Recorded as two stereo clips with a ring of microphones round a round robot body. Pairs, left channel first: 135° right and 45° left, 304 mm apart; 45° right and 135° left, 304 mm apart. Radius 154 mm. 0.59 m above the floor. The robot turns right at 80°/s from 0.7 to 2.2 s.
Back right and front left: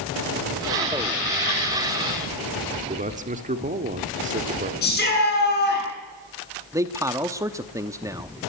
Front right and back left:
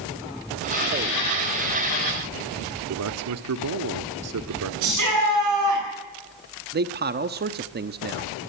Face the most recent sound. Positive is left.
turn(degrees=115)